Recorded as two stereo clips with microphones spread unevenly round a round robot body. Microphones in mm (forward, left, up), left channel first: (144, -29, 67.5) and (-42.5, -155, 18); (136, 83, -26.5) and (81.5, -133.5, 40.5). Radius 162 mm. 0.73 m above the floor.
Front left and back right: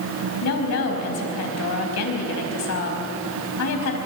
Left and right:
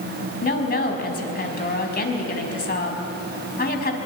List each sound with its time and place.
0.4 s a woman speaking: 30° left, 4.5 m